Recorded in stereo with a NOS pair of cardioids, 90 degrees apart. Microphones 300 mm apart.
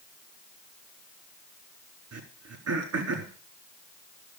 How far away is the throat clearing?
About 4 m.